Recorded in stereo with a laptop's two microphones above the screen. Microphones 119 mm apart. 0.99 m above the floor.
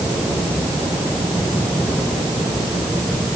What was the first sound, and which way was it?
Only background noise.